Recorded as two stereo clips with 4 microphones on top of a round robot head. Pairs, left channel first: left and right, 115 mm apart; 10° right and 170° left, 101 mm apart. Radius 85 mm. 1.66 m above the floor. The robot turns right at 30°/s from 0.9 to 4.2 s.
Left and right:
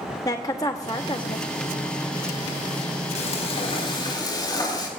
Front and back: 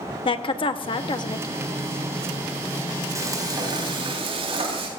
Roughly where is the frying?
Left.